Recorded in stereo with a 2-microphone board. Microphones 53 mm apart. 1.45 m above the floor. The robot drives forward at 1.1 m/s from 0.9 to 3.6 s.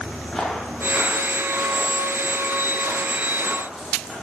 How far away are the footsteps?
About 3.5 m.